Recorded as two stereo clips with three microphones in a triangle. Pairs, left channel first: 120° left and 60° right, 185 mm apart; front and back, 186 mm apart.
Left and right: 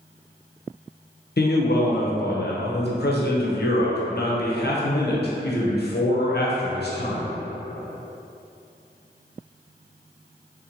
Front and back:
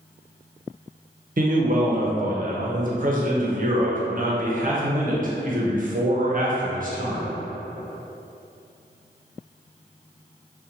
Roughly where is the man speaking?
Behind left.